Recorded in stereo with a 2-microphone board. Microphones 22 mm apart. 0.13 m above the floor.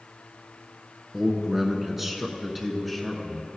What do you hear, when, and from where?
1.1 s a man speaking: 15° right (ahead or behind), 1.3 m; by 3.5 s centre (ahead or behind), 1.3 m